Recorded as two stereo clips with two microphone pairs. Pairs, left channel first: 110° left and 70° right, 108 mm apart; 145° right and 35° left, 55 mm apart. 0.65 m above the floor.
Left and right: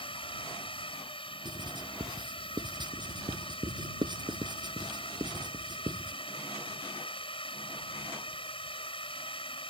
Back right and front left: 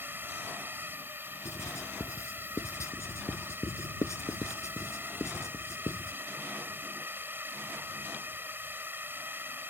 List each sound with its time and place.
0.0 s a drone: 80° left
1.4 s writing: 115° right